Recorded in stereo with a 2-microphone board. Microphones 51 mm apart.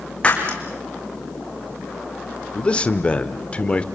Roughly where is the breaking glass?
Left.